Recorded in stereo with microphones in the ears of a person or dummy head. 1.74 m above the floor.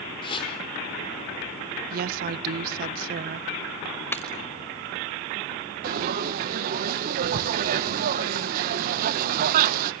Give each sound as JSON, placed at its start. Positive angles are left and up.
{"t": 0.2, "sound": "a whoosh", "side_deg": 25, "distance_m": 5.0}
{"t": 1.9, "sound": "a woman speaking", "side_deg": -50, "distance_m": 0.7}
{"t": 4.1, "sound": "breaking glass", "side_deg": 15, "distance_m": 5.0}
{"t": 5.8, "sound": "frying", "side_deg": -50, "distance_m": 1.1}